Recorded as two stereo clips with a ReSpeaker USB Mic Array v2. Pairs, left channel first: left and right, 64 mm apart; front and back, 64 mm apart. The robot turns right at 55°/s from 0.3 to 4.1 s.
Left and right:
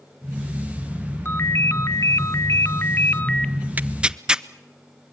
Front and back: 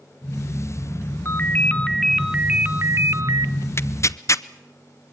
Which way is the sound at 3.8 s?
35° right.